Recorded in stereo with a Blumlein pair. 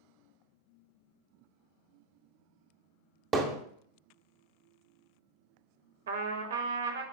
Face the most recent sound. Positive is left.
turn(degrees=-60)